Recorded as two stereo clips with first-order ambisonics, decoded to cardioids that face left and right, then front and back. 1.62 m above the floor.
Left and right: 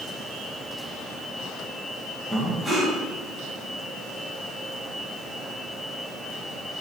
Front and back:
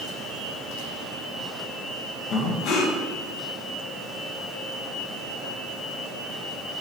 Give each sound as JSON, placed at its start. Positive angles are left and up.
{"t": 2.3, "sound": "breathing", "azimuth_deg": -5, "distance_m": 1.0}